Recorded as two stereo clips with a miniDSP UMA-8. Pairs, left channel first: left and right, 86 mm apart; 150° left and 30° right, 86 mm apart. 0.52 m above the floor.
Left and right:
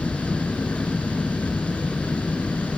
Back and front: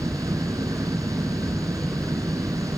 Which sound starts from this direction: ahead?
An engine running, at 0.0 s.